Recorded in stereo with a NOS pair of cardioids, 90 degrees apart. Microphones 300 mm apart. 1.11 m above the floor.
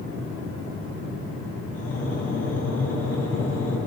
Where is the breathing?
55° left, 9.5 m.